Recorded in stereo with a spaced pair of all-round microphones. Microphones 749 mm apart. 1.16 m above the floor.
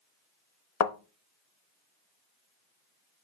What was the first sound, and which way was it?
A thud, 60° left (ahead or behind).